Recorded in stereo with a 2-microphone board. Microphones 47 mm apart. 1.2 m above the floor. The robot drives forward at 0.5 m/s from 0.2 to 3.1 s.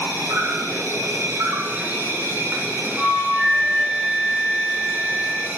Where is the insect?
65° right (ahead or behind), 1.4 m; by 5.6 s 45° right (ahead or behind), 1.8 m.